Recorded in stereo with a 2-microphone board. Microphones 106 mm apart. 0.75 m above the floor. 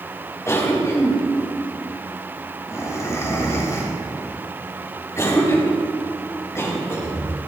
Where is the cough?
25° left (ahead or behind), 3 m.